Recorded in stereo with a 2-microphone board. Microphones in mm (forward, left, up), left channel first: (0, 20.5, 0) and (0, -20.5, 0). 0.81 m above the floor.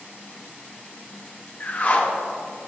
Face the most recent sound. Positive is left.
turn(degrees=45)  # may be behind; listen again after turning